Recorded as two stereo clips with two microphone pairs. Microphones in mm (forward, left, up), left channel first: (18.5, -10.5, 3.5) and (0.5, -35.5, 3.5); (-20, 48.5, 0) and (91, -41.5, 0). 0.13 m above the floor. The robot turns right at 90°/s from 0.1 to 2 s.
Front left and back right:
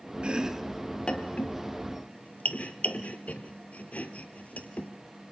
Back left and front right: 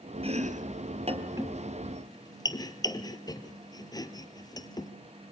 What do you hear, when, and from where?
0.2 s chopping: 80° right, 1.7 m; by 4.9 s 80° left, 1.7 m